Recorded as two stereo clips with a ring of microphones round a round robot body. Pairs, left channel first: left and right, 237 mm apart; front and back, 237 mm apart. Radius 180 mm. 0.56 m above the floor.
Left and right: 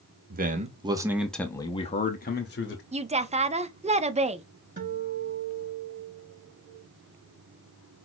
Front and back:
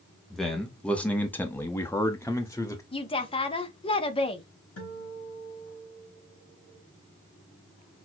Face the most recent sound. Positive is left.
turn(degrees=-35)